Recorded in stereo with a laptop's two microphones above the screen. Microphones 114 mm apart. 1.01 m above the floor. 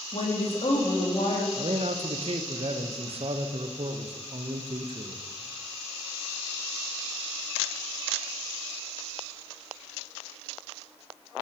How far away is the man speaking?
About 0.5 m.